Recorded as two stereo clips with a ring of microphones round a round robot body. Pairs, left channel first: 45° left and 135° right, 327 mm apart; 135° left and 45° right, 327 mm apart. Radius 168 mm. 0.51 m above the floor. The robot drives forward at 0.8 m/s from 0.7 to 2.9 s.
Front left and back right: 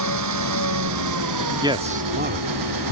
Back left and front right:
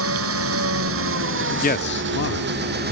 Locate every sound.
0.0 s an engine running: 95° right; by 2.9 s 105° right
1.6 s a man speaking: 160° left; by 2.8 s 175° left